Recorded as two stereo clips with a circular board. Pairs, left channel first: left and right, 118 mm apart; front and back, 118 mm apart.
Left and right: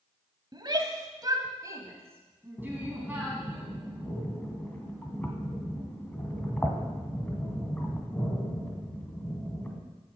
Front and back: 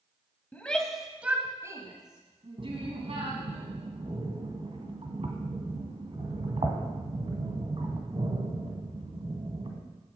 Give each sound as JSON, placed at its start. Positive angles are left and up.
{"t": 0.5, "sound": "a shout", "azimuth_deg": -70, "distance_m": 1.7}
{"t": 2.6, "sound": "breathing", "azimuth_deg": 160, "distance_m": 2.5}